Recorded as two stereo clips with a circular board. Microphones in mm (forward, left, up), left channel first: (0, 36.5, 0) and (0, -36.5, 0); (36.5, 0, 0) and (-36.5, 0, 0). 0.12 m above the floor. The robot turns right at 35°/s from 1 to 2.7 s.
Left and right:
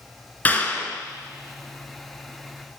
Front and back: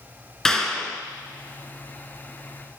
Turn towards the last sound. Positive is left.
turn(degrees=135)